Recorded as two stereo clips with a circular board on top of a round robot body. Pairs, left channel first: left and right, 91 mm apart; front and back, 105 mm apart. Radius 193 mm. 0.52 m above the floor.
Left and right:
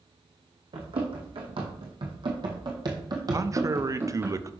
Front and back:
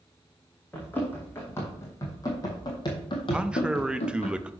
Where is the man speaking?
105° right, 0.9 m.